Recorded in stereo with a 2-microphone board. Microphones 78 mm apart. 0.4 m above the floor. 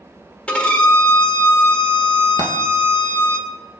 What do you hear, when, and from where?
0.5 s a violin: 15° left (ahead or behind), 1.3 m
2.4 s a dropped coin: 75° right (ahead or behind), 1.5 m